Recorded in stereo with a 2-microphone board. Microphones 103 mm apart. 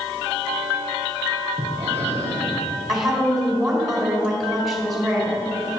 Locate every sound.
1.6 s breathing: 75° left (ahead or behind), 3 m
2.9 s a woman speaking: centre (ahead or behind), 3.5 m